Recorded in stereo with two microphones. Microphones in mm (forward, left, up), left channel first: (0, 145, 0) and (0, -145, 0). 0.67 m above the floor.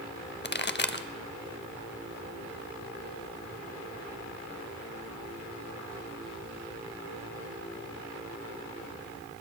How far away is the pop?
About 0.5 m.